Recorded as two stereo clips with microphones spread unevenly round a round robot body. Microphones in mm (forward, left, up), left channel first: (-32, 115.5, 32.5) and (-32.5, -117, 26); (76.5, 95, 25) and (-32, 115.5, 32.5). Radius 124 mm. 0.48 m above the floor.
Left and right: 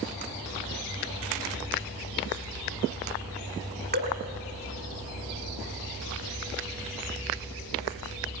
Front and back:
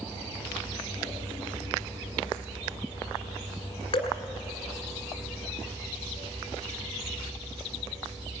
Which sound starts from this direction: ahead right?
Dripping, at 3.9 s.